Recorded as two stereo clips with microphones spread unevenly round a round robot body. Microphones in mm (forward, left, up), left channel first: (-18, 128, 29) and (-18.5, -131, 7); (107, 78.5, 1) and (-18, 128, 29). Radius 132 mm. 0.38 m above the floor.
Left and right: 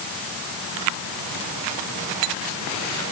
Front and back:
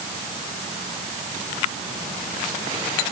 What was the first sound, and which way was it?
Only background noise.